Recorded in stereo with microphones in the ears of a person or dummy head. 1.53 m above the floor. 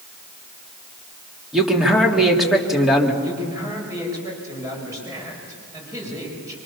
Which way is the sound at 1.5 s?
5° right (ahead or behind).